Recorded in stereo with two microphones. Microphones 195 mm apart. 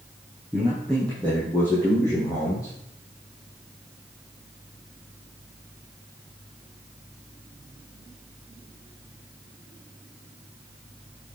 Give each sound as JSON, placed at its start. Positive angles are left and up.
{"t": 0.5, "sound": "a man speaking", "side_deg": 0, "distance_m": 3.0}